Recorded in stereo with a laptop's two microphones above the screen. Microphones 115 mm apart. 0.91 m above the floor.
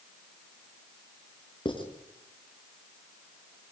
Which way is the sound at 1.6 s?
45° left (ahead or behind).